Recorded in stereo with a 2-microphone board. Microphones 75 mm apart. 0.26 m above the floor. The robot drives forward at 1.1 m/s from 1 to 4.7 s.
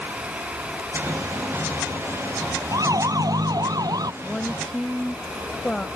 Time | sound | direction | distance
2.7 | a siren | 55° right (ahead or behind) | ?
4.2 | a woman speaking | 10° left (ahead or behind) | ?